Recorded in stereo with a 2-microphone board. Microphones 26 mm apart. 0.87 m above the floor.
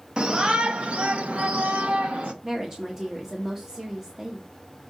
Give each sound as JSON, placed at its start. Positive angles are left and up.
{"t": 0.2, "sound": "a shout", "side_deg": -30, "distance_m": 1.0}
{"t": 2.4, "sound": "a woman speaking", "side_deg": -15, "distance_m": 1.2}